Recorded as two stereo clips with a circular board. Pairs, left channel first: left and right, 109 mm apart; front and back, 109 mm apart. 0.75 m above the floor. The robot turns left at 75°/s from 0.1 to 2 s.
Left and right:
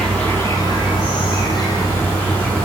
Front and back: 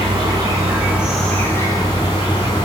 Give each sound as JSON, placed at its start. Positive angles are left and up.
{"t": 0.0, "sound": "an insect", "azimuth_deg": 170, "distance_m": 0.9}